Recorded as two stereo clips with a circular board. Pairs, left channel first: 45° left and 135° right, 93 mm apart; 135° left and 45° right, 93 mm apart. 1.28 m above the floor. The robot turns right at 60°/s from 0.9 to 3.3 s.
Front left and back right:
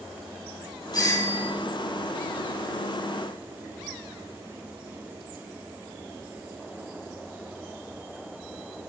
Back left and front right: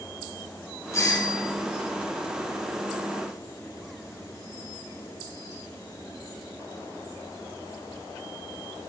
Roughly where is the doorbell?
Left.